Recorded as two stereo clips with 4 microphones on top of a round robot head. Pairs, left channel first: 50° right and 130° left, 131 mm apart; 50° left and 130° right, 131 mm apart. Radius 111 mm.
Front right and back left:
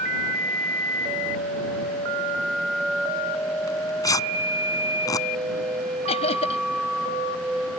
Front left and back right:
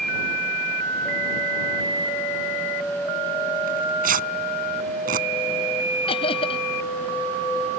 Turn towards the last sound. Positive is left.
turn(degrees=0)